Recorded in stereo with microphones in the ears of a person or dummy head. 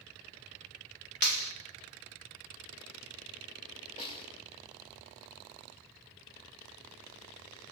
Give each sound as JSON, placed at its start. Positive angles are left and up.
{"t": 1.2, "sound": "a clap", "side_deg": 60, "distance_m": 2.0}
{"t": 4.0, "sound": "a snare drum", "side_deg": 30, "distance_m": 4.5}